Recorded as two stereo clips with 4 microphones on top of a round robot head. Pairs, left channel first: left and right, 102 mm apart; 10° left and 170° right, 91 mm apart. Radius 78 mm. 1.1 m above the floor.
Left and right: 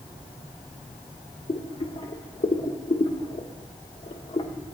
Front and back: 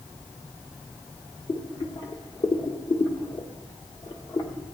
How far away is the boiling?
About 1.4 m.